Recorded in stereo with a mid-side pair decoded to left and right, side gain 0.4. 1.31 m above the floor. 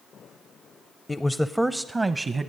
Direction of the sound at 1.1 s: 25° left.